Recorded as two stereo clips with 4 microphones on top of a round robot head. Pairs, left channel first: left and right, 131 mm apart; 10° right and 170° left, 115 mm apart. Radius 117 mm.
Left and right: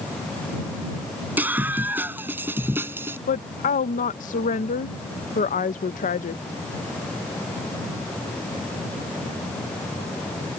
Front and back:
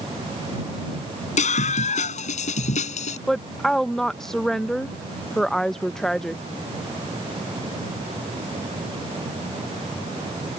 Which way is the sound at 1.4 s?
10° right.